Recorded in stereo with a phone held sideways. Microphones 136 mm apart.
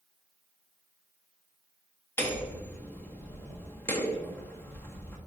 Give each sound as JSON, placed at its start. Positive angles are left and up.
{"t": 2.2, "sound": "hammering", "side_deg": 20, "distance_m": 1.4}